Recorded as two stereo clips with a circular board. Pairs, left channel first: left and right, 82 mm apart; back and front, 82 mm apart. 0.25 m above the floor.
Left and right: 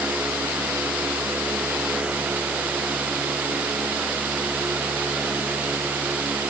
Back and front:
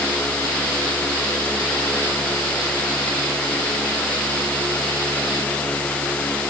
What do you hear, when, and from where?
Only background noise.